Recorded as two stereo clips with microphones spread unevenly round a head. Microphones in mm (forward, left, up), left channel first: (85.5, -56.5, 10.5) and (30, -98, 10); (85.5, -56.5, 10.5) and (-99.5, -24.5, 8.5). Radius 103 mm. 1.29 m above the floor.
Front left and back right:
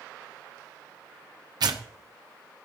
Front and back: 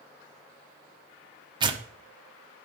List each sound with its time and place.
1.6 s tearing paper: 125° right, 0.9 m